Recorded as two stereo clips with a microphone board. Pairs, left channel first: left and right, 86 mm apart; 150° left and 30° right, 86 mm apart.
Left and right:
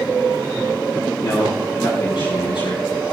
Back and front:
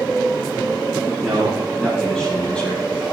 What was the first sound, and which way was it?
A man speaking, 60° left.